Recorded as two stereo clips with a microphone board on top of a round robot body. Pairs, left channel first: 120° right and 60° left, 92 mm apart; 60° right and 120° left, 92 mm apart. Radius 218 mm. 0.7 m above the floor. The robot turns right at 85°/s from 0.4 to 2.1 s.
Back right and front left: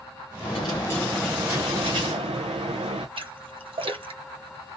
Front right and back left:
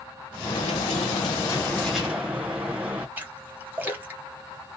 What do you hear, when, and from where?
0.4 s a dropped coin: 100° right, 0.5 m; by 3.1 s 45° left, 0.5 m
3.2 s a splash: 50° left, 1.7 m